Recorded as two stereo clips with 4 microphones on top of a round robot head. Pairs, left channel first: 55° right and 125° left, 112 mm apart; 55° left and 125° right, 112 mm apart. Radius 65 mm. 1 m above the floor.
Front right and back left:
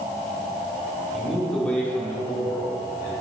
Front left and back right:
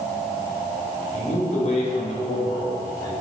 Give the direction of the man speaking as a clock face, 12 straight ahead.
11 o'clock.